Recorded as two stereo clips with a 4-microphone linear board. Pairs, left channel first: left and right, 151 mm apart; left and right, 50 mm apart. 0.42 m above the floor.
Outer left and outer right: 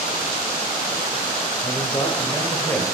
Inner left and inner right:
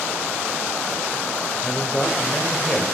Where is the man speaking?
35° left (ahead or behind), 1.6 m; by 2.9 s 15° left (ahead or behind), 1.6 m.